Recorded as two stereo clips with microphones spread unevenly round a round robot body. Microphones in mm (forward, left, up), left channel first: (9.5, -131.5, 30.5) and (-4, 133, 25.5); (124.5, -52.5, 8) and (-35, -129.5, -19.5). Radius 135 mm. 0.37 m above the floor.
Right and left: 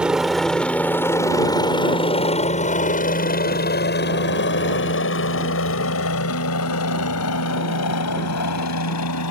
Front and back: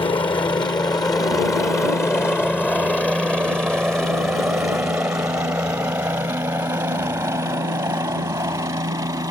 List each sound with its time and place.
0.0 s a helicopter: 15° left; by 9.3 s 85° right